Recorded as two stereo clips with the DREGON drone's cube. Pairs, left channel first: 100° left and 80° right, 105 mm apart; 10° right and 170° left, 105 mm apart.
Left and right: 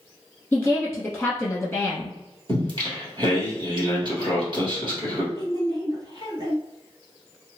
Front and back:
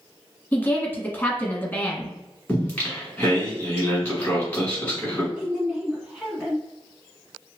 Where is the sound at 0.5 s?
35° left, 1.2 m.